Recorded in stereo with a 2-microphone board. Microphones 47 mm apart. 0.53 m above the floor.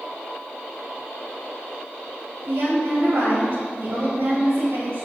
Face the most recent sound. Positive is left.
turn(degrees=-55)  # may be behind; listen again after turning